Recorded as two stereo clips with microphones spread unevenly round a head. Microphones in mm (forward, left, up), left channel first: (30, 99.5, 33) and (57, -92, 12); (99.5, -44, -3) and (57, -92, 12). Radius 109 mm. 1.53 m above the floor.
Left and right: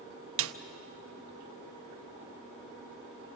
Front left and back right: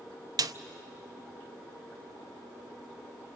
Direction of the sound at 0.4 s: 105° right.